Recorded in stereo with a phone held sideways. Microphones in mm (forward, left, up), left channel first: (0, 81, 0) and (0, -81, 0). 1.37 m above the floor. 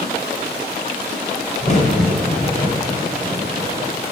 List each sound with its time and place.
1.6 s a crack: 45° left (ahead or behind), 2.5 m